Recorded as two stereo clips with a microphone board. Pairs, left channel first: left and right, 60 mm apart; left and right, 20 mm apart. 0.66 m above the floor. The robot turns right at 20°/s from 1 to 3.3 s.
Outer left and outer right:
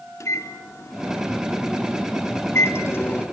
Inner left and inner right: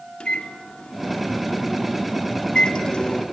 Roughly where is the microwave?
Left.